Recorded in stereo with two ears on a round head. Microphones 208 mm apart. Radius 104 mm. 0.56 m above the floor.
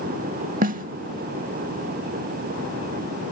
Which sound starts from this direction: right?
A snare drum, at 0.6 s.